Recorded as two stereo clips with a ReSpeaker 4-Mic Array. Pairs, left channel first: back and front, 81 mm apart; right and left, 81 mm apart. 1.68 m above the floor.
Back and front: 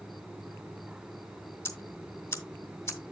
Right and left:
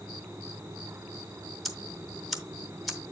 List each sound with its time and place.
1.6 s ticking: straight behind, 1.7 m